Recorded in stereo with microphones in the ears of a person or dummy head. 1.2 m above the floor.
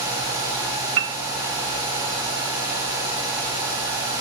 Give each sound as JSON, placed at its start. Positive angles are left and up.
{"t": 1.0, "sound": "a piano", "side_deg": -60, "distance_m": 0.5}